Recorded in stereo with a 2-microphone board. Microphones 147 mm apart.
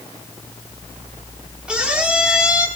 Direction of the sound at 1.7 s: 5° right (ahead or behind).